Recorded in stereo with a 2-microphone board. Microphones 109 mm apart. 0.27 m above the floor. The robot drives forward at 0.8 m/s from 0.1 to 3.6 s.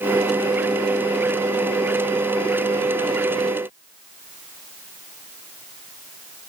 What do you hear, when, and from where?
Only background noise.